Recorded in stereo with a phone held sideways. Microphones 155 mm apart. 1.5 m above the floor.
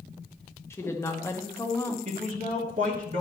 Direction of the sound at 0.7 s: 15° left (ahead or behind).